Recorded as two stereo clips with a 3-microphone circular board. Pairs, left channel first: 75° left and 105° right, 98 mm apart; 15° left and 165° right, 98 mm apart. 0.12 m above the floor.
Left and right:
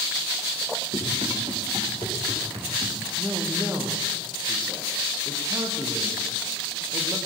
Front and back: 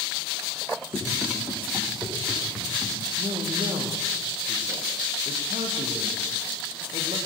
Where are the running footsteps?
90° right, 9.5 m; by 3.0 s 85° right, 7.5 m.